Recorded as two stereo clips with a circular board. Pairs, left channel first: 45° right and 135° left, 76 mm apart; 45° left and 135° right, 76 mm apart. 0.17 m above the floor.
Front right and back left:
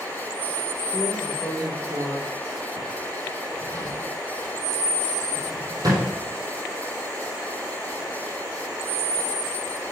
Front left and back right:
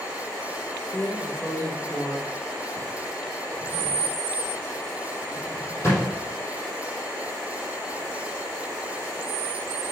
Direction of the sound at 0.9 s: 100° left.